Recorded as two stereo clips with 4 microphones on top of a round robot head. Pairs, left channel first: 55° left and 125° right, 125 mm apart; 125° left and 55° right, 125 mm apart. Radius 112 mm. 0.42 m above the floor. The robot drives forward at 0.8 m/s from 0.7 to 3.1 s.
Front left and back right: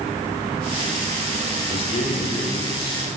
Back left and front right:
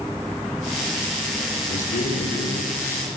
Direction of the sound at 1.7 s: 95° left.